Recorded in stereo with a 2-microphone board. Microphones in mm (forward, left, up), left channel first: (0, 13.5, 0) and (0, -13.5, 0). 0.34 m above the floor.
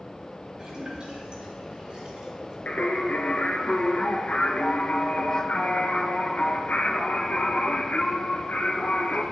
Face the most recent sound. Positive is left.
turn(degrees=75)  # may be behind; listen again after turning